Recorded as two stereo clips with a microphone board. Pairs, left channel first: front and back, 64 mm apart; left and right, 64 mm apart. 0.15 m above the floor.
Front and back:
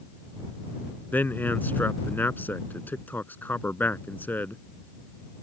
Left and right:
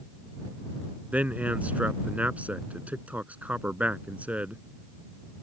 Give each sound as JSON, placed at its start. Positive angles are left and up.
{"t": 1.1, "sound": "a man speaking", "azimuth_deg": -40}